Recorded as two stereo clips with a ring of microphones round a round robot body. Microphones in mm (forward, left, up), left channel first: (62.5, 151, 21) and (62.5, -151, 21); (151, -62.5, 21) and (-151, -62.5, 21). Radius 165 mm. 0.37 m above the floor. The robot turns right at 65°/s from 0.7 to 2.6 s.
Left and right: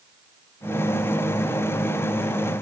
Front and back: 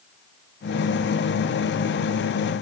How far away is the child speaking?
No child speaking in this recording.